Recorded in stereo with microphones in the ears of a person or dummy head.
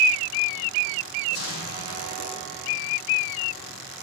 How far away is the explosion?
About 5 m.